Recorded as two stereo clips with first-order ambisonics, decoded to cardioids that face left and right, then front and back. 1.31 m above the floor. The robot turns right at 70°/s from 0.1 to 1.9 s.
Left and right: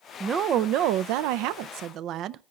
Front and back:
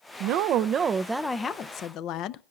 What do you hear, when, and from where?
0.2 s a woman speaking: 160° right, 0.5 m; by 2.4 s 45° right, 0.5 m